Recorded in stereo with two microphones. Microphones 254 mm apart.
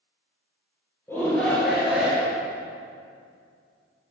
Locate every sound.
1.1 s a shout: 10° left (ahead or behind), 2.5 m; by 2.4 s 10° right (ahead or behind), 2.5 m